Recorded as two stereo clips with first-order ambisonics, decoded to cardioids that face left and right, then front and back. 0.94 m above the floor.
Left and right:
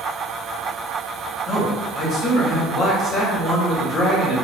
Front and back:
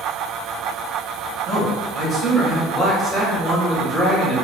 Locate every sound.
1.5 s a man speaking: 65° left, 0.7 m